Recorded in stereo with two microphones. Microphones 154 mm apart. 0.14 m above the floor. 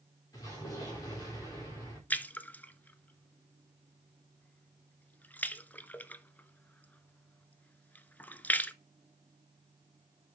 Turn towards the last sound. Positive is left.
turn(degrees=10)  # may be behind; listen again after turning